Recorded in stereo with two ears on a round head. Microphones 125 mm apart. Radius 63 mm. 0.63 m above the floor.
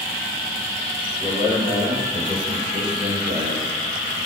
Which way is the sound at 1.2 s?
35° right (ahead or behind).